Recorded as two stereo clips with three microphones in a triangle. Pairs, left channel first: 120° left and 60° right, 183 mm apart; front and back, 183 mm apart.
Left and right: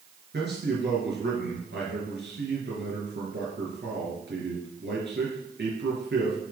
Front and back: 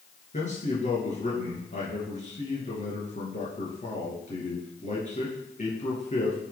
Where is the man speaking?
45° right, 3.5 m.